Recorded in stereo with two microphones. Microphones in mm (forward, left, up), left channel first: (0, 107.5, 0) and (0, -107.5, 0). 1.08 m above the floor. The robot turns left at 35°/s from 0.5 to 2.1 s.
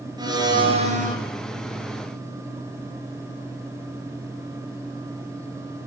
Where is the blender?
20° right (ahead or behind), 4.5 m; by 1.2 s 40° right (ahead or behind), 4.5 m.